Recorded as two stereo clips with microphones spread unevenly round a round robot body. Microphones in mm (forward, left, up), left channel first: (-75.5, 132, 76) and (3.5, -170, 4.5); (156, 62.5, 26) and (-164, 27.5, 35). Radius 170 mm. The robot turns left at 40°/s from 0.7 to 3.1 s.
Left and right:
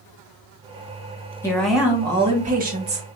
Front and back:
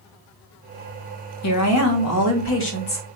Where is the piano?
No piano in this recording.